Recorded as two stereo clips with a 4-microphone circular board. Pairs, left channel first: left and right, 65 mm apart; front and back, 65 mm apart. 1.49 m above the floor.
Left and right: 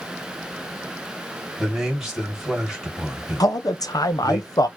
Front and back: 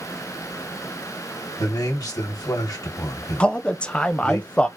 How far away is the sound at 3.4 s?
About 0.7 m.